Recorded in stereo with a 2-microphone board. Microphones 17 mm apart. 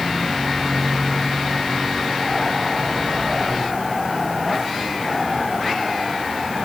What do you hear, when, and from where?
Only background noise.